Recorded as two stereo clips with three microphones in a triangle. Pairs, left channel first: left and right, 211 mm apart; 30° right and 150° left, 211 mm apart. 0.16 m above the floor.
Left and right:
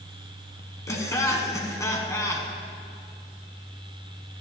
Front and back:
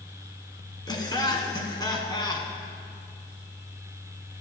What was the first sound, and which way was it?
Laughter, 25° left.